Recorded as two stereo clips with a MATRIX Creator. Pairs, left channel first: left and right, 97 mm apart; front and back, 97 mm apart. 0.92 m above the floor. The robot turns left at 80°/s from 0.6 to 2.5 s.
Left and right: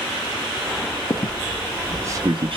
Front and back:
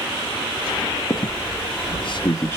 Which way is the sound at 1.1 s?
50° left.